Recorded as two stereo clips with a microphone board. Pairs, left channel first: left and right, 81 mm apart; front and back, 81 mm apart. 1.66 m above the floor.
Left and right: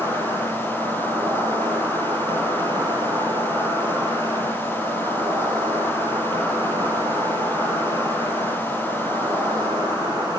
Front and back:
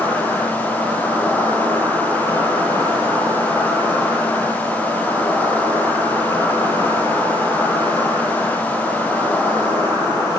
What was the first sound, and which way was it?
An insect, 70° right.